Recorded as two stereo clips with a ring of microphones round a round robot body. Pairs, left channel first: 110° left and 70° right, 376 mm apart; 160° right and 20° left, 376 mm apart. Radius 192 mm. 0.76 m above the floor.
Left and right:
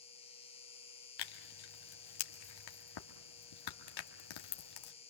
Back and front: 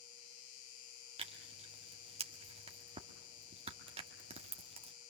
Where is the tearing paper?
95° left, 1.7 m.